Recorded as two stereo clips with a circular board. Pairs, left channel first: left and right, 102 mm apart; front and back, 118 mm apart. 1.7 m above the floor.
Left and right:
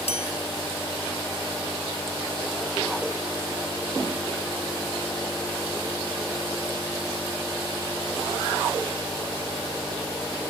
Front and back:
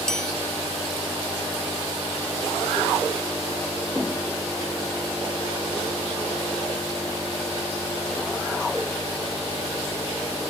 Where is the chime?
85° left.